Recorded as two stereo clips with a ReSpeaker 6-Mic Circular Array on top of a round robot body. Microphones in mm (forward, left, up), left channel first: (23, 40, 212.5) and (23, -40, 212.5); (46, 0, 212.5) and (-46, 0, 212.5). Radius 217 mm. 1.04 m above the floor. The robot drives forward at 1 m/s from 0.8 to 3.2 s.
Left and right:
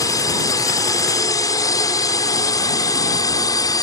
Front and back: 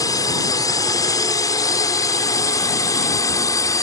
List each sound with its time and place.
0.0 s a drone: 50° left